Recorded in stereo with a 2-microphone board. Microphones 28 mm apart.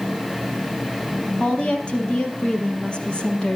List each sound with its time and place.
1.4 s a woman speaking: 35° left (ahead or behind), 4 m